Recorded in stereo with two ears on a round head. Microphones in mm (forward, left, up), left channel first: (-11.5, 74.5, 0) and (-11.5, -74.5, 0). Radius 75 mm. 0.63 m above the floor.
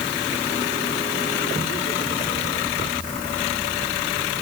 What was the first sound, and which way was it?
Only background noise.